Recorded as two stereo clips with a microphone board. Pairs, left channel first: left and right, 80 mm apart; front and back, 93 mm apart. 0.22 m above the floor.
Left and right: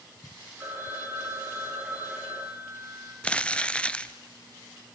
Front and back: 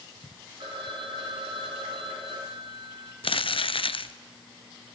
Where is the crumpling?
15° left, 0.8 m.